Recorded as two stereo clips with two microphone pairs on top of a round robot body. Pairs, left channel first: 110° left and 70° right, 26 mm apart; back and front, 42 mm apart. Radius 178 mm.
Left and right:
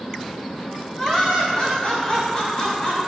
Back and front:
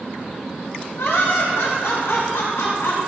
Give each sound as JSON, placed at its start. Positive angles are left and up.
{"t": 1.0, "sound": "laughter", "azimuth_deg": 170, "distance_m": 4.5}